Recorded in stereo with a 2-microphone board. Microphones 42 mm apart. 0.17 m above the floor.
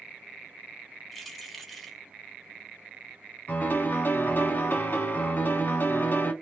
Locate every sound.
1.1 s keys jangling: centre (ahead or behind), 0.7 m
3.5 s a piano: 50° left (ahead or behind), 0.8 m